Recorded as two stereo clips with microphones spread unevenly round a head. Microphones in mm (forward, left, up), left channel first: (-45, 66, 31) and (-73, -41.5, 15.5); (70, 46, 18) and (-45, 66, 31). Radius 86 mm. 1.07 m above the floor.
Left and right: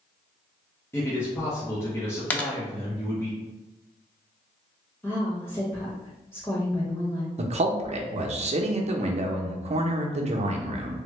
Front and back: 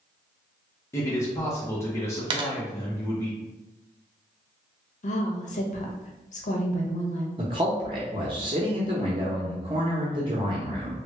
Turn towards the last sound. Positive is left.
turn(degrees=-130)